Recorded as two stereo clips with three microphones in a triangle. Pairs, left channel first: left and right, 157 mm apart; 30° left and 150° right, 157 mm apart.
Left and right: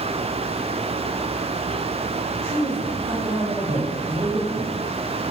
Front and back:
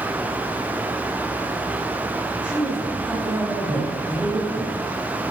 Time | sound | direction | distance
2.3 | a man speaking | 70° right | 5.5 m